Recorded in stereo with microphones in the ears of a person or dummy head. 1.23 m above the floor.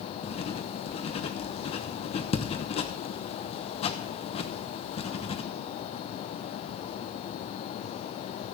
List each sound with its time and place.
0.2 s writing: 30° left (ahead or behind), 1.0 m